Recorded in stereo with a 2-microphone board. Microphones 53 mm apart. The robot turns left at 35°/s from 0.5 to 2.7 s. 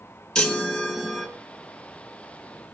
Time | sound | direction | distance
0.3 | a chime | 10° left (ahead or behind) | 3 m